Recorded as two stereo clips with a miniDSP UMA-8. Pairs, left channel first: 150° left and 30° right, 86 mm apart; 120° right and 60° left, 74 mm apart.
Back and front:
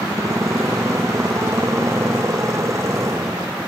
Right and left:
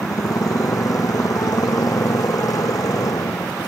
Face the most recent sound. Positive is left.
turn(degrees=-85)